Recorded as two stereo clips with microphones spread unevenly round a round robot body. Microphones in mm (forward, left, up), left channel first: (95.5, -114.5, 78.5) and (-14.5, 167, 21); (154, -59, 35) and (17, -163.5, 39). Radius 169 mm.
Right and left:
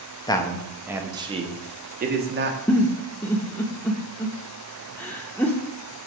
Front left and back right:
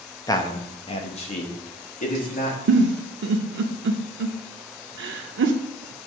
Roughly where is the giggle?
Behind right.